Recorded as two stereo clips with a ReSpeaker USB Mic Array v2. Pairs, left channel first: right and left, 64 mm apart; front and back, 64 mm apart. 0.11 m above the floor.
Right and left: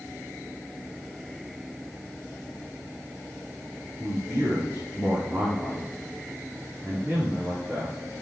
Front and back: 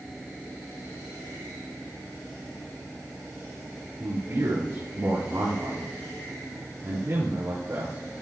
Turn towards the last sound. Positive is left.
turn(degrees=150)